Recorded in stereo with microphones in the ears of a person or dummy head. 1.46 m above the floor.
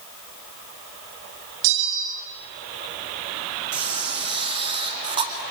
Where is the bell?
65° right (ahead or behind), 3 m.